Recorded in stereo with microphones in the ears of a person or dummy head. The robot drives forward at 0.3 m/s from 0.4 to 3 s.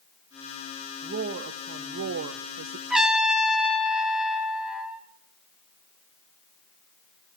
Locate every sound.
1.0 s a woman speaking: 45° right (ahead or behind), 0.7 m; by 2.8 s 80° right, 0.5 m
2.9 s a trumpet: 5° right (ahead or behind), 0.9 m